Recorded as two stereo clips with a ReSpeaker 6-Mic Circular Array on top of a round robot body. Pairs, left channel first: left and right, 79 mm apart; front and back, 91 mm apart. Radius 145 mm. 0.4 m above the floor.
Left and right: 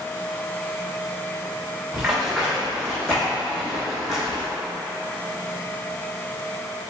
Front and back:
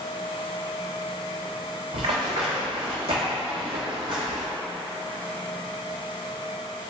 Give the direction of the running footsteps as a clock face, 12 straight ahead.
6 o'clock.